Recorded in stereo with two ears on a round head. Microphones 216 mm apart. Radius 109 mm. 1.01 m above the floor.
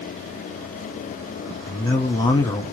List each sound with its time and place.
1.7 s a man speaking: 15° left (ahead or behind), 1.4 m